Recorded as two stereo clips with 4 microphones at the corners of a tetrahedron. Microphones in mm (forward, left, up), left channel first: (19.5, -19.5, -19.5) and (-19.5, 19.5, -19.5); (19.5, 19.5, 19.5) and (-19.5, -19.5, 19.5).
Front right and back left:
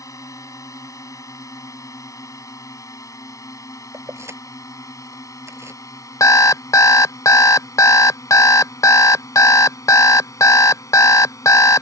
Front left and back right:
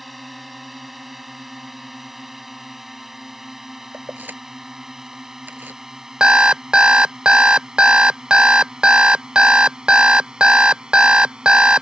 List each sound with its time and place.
0.0 s a drone: 45° right; by 11.8 s 60° right
3.9 s keys jangling: 170° left
6.2 s an alarm clock: 60° right